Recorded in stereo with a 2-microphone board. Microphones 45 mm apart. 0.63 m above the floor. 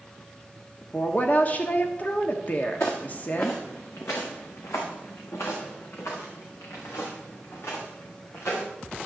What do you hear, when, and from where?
0.9 s a woman speaking: 40° left (ahead or behind), 1.2 m
2.8 s footsteps: 65° left (ahead or behind), 3.5 m; by 8.6 s 60° left (ahead or behind), 6 m